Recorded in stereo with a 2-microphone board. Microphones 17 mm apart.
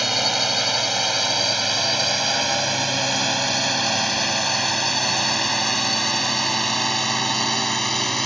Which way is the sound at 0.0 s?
5° right (ahead or behind).